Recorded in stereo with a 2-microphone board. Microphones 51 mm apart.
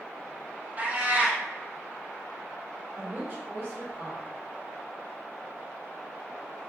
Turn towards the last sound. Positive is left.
turn(degrees=-35)  # may be behind; listen again after turning